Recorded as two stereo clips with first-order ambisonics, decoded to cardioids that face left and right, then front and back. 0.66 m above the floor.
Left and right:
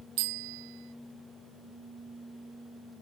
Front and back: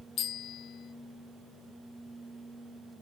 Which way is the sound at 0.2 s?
60° right.